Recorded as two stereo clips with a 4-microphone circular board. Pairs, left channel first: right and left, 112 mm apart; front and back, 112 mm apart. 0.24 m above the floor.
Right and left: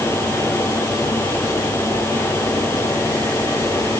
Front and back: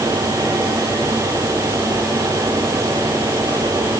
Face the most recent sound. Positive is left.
No sound to turn to.